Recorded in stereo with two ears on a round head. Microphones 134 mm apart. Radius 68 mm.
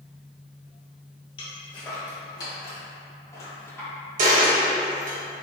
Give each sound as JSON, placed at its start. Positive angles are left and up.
{"t": 1.4, "sound": "footsteps", "side_deg": 35, "distance_m": 1.9}
{"t": 4.2, "sound": "a dropped coin", "side_deg": -55, "distance_m": 1.3}